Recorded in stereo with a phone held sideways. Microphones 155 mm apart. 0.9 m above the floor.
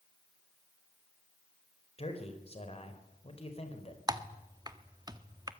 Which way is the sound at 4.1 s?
25° right (ahead or behind).